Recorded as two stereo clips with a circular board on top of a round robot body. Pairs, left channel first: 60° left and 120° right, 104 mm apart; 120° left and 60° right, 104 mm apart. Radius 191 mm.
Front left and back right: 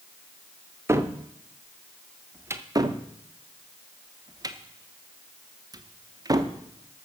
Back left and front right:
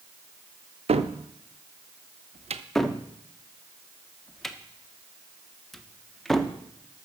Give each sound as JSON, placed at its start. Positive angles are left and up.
{"t": 0.9, "sound": "a cupboard door", "azimuth_deg": -55, "distance_m": 0.8}
{"t": 2.8, "sound": "a cupboard door", "azimuth_deg": -155, "distance_m": 1.0}